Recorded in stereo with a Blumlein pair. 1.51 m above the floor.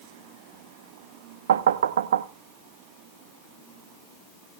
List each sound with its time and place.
1.5 s knocking: 60° right, 0.7 m